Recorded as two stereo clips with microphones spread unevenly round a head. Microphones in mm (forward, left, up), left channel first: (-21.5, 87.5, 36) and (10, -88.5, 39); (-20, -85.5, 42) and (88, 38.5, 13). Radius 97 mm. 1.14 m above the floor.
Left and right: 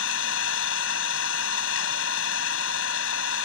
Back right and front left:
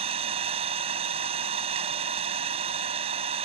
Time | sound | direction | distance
0.0 | an engine running | 115° left | ?